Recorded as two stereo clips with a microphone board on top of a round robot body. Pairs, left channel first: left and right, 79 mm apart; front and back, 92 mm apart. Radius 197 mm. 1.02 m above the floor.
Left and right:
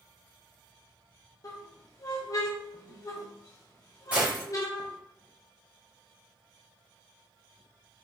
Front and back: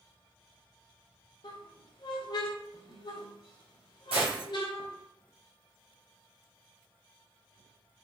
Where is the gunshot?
165° right, 1.8 m.